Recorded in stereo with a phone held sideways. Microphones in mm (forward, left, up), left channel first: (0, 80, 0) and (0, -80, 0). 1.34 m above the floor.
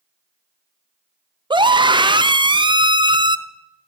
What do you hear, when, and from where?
1.5 s a scream: 30° right (ahead or behind), 0.7 m